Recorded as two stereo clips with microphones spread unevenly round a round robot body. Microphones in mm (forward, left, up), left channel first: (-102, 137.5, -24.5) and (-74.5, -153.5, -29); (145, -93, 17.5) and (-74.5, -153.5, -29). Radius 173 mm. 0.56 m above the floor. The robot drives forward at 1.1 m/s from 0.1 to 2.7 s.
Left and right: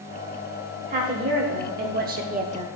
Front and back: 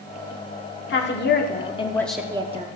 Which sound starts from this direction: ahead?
A woman speaking, at 0.9 s.